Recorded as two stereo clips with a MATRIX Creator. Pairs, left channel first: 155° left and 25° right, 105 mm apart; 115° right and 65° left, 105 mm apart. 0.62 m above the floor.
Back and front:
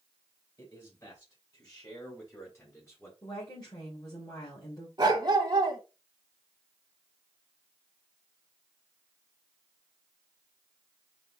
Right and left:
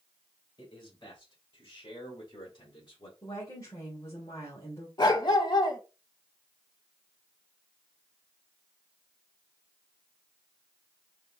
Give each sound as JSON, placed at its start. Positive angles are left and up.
{"t": 0.6, "sound": "a man speaking", "azimuth_deg": -155, "distance_m": 3.0}
{"t": 3.2, "sound": "a woman speaking", "azimuth_deg": -165, "distance_m": 2.0}
{"t": 5.0, "sound": "a dog barking", "azimuth_deg": -70, "distance_m": 1.0}